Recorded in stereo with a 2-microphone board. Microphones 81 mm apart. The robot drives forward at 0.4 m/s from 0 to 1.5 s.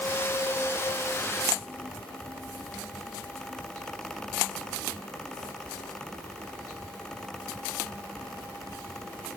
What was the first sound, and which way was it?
Only background noise.